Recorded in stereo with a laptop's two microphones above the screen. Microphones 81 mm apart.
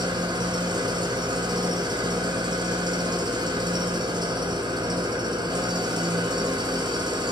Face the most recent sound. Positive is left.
turn(degrees=-65)  # may be behind; listen again after turning